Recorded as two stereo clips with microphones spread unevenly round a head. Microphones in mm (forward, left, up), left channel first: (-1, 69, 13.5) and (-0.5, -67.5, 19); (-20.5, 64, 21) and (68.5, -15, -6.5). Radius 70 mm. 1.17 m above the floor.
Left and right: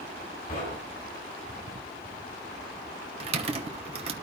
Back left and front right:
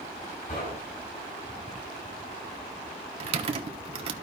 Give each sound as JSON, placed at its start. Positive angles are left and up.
{"t": 0.5, "sound": "knocking", "azimuth_deg": 120, "distance_m": 7.0}
{"t": 3.2, "sound": "typing on a keyboard", "azimuth_deg": -45, "distance_m": 1.1}